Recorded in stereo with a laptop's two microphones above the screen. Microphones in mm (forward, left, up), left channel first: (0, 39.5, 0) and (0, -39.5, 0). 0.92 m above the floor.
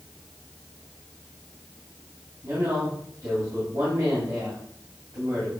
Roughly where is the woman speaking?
Right.